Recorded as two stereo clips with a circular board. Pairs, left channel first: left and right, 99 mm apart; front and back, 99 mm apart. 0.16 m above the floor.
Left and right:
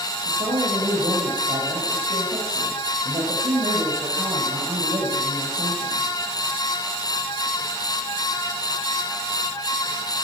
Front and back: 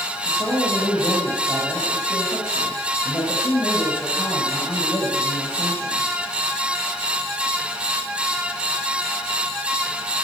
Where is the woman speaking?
70° right, 5 m.